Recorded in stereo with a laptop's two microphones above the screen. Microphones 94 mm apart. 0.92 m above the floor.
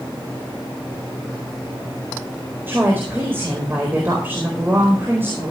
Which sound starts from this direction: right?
A woman speaking, at 2.7 s.